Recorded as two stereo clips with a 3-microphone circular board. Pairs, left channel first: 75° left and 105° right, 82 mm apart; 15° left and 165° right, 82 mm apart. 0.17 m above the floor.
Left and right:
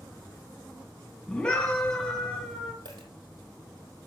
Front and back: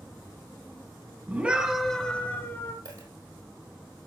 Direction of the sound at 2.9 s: 125° right.